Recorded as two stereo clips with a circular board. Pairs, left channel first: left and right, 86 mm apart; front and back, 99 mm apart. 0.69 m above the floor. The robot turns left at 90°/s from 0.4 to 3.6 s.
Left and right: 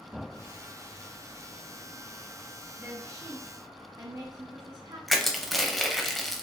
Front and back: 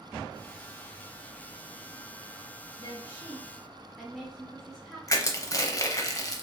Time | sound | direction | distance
2.8 | a woman speaking | 20° right | 0.6 m
5.1 | crushing | straight ahead | 0.5 m